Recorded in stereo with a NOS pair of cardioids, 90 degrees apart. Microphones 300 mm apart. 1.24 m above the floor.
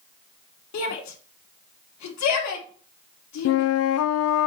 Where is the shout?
65° left, 2.5 m.